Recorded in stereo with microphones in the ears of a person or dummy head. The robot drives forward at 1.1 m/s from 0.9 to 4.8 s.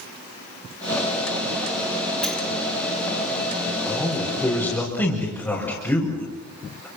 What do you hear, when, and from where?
2.2 s a sliding door: centre (ahead or behind), 3 m
3.9 s a man speaking: 15° left (ahead or behind), 4.5 m